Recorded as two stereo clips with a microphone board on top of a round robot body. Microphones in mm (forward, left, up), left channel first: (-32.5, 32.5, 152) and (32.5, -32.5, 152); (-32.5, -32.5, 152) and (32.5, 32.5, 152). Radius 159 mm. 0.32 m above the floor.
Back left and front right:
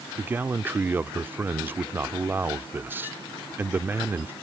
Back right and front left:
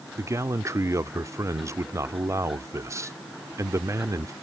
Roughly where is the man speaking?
Ahead.